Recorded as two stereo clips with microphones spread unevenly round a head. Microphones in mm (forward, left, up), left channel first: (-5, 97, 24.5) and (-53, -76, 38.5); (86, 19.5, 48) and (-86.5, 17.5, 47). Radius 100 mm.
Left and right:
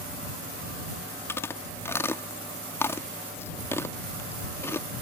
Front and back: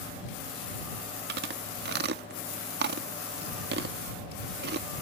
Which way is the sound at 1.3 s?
150° left.